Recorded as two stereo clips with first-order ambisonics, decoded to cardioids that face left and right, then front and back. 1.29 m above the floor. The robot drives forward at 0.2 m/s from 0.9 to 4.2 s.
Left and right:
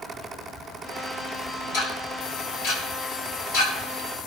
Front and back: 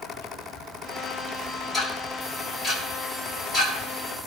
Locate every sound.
1.7 s ticking: 85° left, 5 m